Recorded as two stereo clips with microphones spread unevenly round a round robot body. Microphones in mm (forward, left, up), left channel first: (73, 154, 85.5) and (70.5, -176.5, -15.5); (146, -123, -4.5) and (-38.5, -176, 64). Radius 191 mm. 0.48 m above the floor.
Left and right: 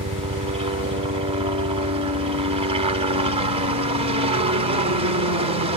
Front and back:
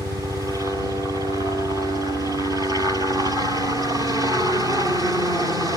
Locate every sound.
0.0 s a helicopter: 75° right